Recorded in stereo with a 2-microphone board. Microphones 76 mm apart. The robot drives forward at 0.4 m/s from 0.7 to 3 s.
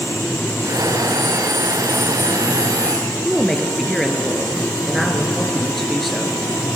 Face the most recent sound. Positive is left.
turn(degrees=0)  # may be behind; listen again after turning